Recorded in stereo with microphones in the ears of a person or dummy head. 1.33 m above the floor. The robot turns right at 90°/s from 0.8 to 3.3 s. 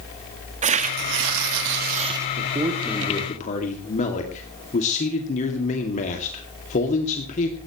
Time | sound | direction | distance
0.6 | tearing paper | 145° right | 1.7 m
2.4 | a man speaking | 45° right | 2.5 m